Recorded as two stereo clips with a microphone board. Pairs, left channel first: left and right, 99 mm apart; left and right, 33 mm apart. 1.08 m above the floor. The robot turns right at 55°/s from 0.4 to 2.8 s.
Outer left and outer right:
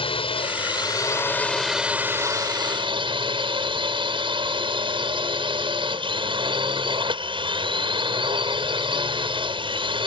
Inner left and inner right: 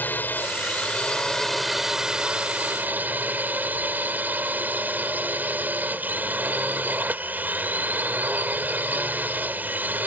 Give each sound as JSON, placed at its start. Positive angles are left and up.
{"t": 0.0, "sound": "a drone", "azimuth_deg": 110}